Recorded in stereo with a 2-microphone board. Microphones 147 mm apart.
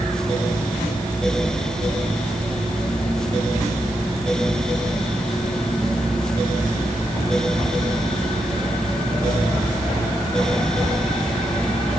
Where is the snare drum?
No snare drum in this recording.